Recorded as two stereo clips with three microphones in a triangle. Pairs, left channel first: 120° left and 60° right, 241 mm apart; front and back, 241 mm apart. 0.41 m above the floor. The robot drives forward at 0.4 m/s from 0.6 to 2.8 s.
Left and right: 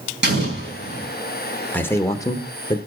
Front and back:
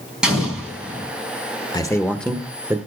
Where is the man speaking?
50° left, 0.8 m; by 2.8 s 125° left, 0.8 m.